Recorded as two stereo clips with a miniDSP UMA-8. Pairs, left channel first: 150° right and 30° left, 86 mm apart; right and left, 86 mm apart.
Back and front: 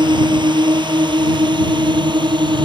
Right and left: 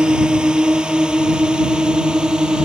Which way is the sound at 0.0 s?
10° left.